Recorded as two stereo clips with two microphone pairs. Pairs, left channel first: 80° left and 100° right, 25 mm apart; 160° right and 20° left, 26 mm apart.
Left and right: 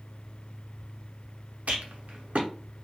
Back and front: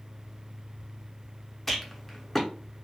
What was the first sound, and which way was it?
A rattle, 85° right.